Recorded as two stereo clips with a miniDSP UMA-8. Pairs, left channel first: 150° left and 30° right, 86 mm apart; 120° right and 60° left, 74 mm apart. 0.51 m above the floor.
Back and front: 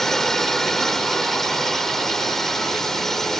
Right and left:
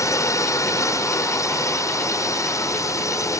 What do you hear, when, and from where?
0.0 s a drone: 125° right